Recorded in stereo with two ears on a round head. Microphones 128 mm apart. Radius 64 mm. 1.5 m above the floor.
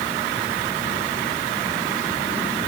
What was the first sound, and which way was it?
Only background noise.